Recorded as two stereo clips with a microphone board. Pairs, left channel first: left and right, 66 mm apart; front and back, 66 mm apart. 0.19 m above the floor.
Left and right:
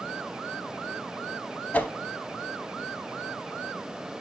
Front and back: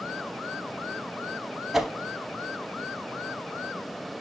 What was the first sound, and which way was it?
A whoosh, 100° left.